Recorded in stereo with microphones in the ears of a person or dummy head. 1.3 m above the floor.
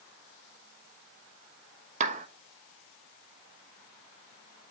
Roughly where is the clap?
Right.